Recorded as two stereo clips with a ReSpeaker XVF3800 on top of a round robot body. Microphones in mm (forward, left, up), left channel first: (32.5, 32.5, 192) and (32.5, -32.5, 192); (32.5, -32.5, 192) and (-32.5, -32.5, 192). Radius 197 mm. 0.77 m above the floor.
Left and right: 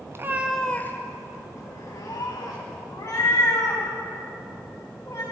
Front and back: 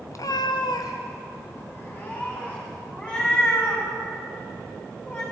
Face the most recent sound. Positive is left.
turn(degrees=65)